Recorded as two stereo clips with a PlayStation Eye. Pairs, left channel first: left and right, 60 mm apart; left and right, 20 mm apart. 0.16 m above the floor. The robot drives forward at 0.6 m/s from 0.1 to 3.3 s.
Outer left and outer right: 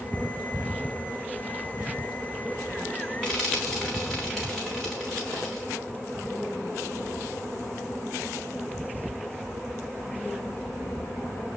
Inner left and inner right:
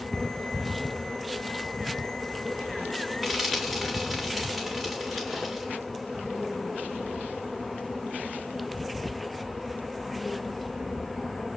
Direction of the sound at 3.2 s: 5° left (ahead or behind).